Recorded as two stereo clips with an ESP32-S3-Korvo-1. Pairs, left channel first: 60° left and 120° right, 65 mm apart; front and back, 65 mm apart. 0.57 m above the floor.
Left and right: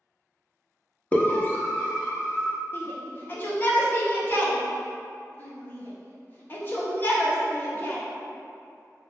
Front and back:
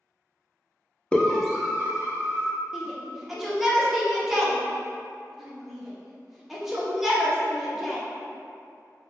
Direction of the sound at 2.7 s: 100° left.